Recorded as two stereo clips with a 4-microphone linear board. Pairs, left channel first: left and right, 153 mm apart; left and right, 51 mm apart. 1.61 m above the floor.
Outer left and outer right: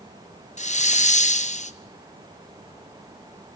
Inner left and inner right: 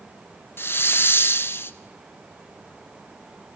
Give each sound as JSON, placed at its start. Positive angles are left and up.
{"t": 0.6, "sound": "a hiss", "side_deg": 50, "distance_m": 0.8}